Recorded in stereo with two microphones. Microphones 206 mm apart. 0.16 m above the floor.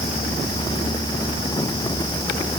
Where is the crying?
I don't hear crying.